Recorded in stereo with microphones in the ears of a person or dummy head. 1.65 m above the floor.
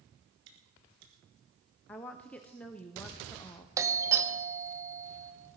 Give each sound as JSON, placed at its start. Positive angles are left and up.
{"t": 0.5, "sound": "chewing", "side_deg": -65, "distance_m": 2.5}
{"t": 1.9, "sound": "a woman speaking", "side_deg": 10, "distance_m": 0.5}
{"t": 3.8, "sound": "a doorbell", "side_deg": -20, "distance_m": 1.1}